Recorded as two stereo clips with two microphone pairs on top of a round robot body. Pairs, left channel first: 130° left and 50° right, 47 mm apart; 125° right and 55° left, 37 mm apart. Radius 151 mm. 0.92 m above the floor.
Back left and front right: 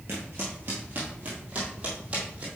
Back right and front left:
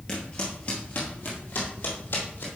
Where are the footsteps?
65° right, 1.1 m; by 2.5 s 105° right, 2 m.